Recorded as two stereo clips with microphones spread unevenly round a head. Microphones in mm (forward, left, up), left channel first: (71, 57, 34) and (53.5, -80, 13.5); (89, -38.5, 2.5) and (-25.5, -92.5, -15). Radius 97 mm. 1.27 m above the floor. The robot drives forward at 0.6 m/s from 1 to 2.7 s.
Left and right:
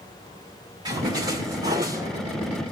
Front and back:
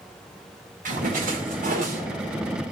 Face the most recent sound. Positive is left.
turn(degrees=-170)